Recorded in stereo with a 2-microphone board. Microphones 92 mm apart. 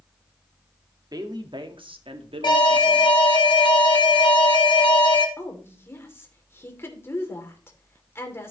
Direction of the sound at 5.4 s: 30° left (ahead or behind).